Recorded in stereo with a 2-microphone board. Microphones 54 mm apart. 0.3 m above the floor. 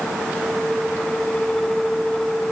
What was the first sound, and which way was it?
Only background noise.